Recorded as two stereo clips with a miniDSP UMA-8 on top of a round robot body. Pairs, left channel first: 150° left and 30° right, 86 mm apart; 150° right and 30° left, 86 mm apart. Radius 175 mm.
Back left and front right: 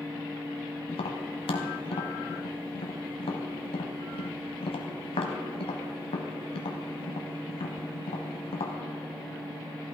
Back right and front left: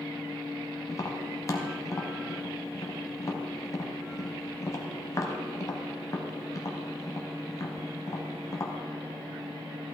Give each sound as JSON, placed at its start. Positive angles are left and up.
{"t": 0.9, "sound": "tapping", "azimuth_deg": 155, "distance_m": 0.9}